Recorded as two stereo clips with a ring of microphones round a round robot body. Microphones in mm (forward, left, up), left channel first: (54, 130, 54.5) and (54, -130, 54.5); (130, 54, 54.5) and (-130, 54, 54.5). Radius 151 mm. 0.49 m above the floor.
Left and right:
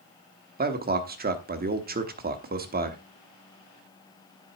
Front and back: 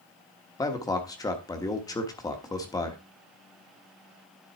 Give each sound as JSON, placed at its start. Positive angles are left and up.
{"t": 0.6, "sound": "a man speaking", "azimuth_deg": -70, "distance_m": 1.1}